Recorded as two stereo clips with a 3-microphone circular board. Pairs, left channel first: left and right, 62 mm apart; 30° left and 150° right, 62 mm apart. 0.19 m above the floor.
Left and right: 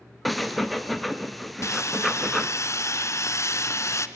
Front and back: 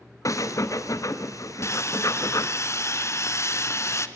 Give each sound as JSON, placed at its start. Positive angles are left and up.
{"t": 0.2, "sound": "breathing", "azimuth_deg": 0, "distance_m": 1.3}
{"t": 1.6, "sound": "sawing", "azimuth_deg": 60, "distance_m": 1.1}